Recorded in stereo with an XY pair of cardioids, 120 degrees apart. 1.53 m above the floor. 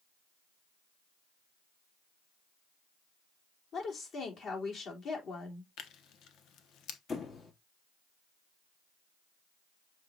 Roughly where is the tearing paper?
Left.